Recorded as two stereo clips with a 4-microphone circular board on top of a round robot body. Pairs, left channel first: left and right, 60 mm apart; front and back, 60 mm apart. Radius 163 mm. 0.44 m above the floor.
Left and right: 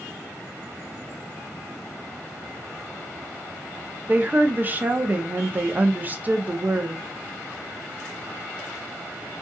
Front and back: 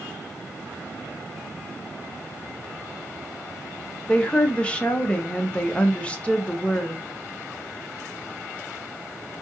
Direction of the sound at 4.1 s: 55° right.